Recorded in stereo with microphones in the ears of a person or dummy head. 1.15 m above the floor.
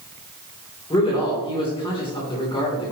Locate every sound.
0.9 s a man speaking: 20° left (ahead or behind), 3 m